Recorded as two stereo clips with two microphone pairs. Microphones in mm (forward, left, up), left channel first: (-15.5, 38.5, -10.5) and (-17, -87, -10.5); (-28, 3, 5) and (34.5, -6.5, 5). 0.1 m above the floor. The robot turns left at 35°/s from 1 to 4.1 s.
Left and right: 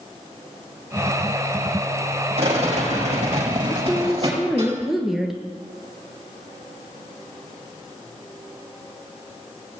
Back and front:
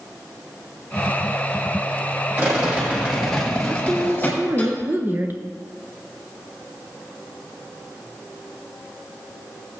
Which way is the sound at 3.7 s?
5° left.